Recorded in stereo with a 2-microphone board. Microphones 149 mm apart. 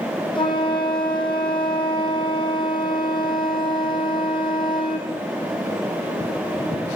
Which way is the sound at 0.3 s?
35° left (ahead or behind).